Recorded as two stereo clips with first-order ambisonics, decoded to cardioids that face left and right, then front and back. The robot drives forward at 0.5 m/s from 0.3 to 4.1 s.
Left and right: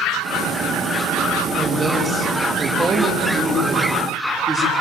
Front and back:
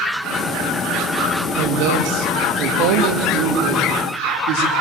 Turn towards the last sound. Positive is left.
turn(degrees=-170)